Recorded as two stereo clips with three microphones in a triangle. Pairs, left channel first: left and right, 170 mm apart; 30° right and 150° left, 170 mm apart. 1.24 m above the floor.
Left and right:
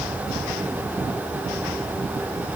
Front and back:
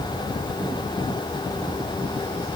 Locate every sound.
Only background noise.